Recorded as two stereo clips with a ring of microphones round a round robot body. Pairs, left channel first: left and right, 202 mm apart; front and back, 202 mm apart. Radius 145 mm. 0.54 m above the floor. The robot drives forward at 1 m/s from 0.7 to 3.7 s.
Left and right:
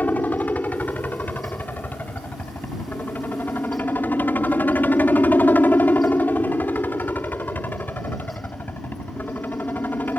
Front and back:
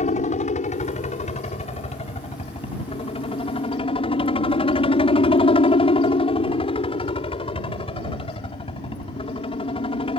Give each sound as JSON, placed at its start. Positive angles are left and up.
{"t": 0.0, "sound": "a helicopter", "azimuth_deg": 15}